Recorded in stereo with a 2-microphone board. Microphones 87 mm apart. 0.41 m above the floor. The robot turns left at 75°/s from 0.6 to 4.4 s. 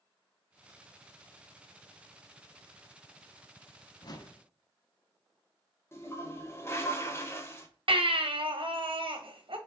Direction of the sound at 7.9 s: 70° right (ahead or behind).